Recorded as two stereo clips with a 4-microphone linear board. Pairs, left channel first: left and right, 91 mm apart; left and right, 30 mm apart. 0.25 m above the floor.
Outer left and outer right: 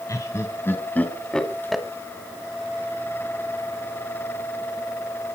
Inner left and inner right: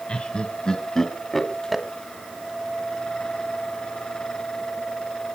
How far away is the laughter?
About 2.5 m.